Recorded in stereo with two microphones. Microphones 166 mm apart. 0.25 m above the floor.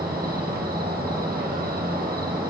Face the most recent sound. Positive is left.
turn(degrees=-70)  # may be behind; listen again after turning